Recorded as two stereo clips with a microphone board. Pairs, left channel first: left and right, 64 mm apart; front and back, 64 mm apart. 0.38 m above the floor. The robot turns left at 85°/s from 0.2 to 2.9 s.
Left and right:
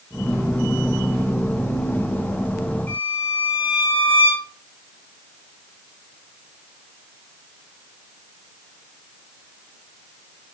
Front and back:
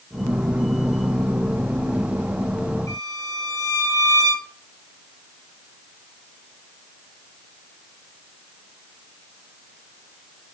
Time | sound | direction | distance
2.9 | a violin | 30° left | 8.5 m